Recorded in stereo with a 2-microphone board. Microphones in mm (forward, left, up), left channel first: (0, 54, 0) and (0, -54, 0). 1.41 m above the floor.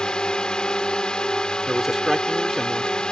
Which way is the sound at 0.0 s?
10° left (ahead or behind).